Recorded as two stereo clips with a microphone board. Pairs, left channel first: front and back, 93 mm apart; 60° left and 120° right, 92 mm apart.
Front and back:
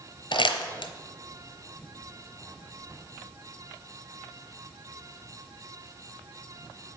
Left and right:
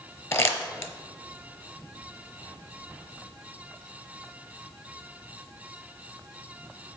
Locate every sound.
0.3 s crumpling: 5° left, 0.8 m